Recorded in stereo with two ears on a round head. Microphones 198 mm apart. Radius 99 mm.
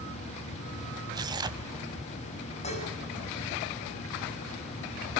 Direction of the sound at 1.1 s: 20° right (ahead or behind).